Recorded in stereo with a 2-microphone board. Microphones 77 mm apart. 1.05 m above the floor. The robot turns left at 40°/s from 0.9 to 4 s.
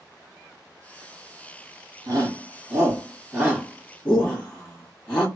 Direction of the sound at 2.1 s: 60° right (ahead or behind).